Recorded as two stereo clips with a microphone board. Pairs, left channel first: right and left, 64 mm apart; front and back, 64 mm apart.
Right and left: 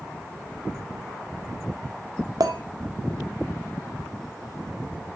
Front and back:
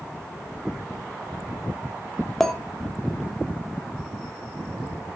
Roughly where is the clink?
Left.